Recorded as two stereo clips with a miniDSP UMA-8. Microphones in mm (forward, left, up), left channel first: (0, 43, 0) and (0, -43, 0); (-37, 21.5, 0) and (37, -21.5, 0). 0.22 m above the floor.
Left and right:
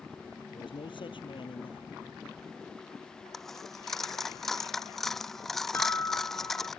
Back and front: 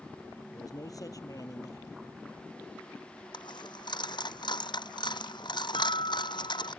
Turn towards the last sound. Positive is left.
turn(degrees=155)